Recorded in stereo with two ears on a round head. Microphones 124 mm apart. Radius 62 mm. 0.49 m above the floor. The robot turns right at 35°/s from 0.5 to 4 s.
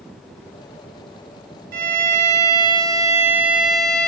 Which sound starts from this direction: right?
A violin, at 1.7 s.